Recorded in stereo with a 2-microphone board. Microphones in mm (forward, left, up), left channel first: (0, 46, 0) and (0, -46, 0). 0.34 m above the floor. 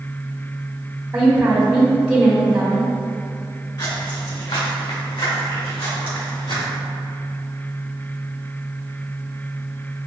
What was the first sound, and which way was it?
A woman speaking, 15° right (ahead or behind).